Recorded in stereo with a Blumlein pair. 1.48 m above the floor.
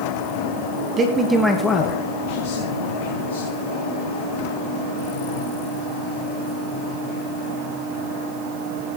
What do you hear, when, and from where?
1.0 s a man speaking: 25° right, 1.7 m; by 3.5 s 80° left, 3 m